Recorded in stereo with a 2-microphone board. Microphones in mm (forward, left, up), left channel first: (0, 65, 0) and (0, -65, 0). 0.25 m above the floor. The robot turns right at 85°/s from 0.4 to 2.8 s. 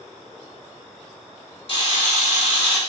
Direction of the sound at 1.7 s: 50° left.